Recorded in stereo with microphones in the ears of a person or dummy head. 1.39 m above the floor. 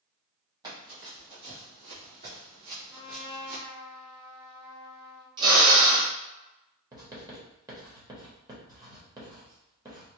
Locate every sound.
0.6 s running footsteps: 25° right (ahead or behind), 2.0 m; by 3.6 s 60° right (ahead or behind), 2.5 m
2.9 s a trumpet: centre (ahead or behind), 0.7 m
5.4 s a drill: 30° right (ahead or behind), 1.3 m
6.9 s writing: 25° right (ahead or behind), 1.1 m